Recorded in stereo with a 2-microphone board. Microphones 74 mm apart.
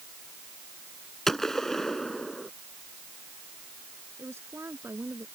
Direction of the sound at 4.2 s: 35° right (ahead or behind).